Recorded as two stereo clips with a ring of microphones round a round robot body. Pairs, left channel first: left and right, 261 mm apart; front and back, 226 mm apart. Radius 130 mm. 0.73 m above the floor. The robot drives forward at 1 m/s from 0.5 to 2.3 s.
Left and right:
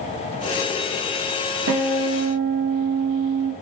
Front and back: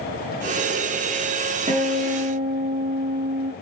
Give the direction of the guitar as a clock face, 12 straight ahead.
4 o'clock.